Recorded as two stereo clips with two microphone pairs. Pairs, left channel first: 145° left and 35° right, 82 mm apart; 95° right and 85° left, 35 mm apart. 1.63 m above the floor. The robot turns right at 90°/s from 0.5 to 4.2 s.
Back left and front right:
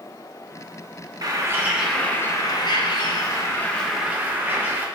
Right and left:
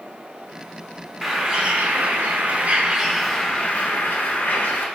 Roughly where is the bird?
Ahead.